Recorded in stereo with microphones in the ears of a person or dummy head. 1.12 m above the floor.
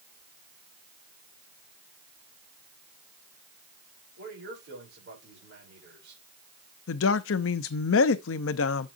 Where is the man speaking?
75° right (ahead or behind), 5 m.